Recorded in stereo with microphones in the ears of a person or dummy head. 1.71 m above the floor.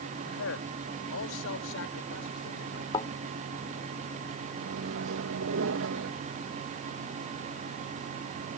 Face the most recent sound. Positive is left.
turn(degrees=-75)  # may be behind; listen again after turning